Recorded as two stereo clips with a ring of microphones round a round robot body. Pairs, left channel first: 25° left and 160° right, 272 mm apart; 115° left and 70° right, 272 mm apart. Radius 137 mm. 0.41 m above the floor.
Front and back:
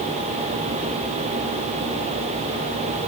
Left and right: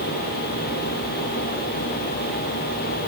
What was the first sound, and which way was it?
Only background noise.